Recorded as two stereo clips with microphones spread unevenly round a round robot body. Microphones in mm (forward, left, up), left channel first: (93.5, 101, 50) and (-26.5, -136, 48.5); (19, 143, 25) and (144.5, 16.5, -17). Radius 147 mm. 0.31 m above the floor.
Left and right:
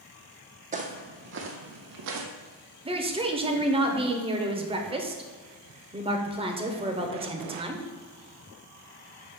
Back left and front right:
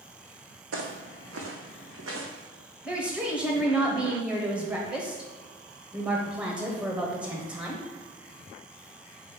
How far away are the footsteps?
About 1.2 m.